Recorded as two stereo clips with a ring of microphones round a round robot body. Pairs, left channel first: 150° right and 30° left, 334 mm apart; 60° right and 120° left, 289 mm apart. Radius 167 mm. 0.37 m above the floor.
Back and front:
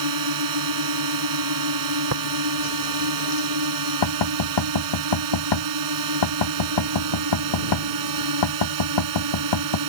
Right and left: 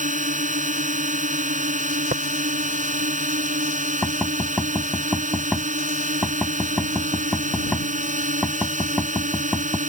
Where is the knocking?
150° right.